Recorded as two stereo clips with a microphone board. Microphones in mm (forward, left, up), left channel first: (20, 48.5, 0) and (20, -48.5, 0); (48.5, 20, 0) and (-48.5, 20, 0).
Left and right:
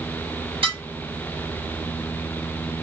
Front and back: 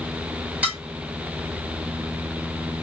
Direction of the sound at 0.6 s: 105° right.